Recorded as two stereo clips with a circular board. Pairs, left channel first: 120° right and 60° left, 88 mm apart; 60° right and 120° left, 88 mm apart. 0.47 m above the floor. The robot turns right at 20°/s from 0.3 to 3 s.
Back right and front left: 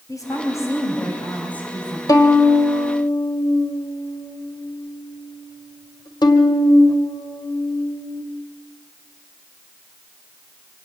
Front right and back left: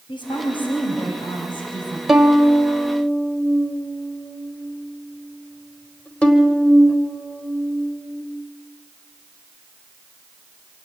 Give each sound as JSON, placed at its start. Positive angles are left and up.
{"t": 0.1, "sound": "a woman speaking", "azimuth_deg": -75, "distance_m": 3.5}
{"t": 2.1, "sound": "a violin", "azimuth_deg": -155, "distance_m": 1.7}